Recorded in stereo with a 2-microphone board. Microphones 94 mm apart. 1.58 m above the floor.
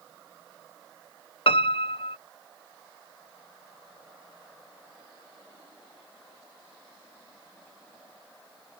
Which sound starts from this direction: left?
A piano, at 1.5 s.